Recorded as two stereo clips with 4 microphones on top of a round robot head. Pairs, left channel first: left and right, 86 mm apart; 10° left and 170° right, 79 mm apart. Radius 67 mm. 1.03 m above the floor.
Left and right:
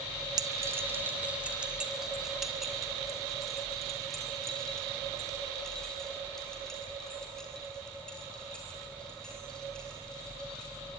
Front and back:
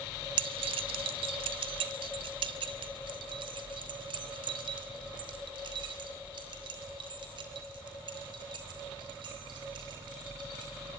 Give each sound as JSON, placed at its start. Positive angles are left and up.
{"t": 0.4, "sound": "keys jangling", "azimuth_deg": -145, "distance_m": 0.6}